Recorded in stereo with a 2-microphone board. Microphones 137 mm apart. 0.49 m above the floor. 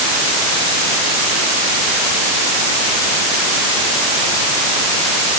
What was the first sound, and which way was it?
Only background noise.